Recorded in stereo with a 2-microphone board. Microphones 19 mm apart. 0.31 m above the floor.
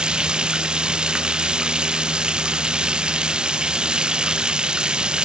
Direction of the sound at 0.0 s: 45° right (ahead or behind).